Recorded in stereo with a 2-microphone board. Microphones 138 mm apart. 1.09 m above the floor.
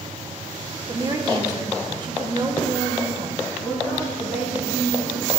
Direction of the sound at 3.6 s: 10° right (ahead or behind).